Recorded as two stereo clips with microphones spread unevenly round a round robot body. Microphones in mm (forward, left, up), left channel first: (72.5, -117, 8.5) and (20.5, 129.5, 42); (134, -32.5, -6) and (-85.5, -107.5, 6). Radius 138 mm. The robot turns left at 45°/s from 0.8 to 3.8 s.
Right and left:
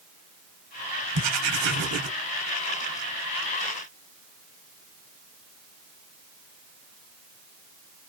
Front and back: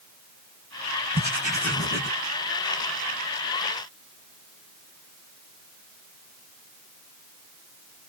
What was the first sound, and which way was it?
Writing, 125° left.